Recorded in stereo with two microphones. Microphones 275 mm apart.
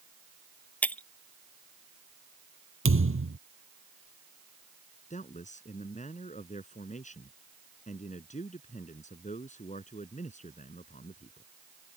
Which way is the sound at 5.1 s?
25° left (ahead or behind).